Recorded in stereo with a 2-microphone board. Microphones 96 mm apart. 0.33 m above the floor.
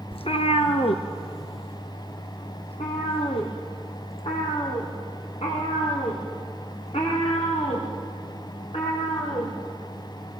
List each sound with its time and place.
0.1 s a cat meowing: 80° left, 1.2 m; by 9.5 s 90° left, 9.5 m